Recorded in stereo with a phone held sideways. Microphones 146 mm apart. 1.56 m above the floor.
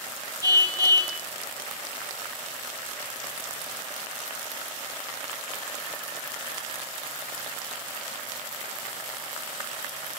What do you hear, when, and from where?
0.4 s a car horn: 25° right (ahead or behind), 2 m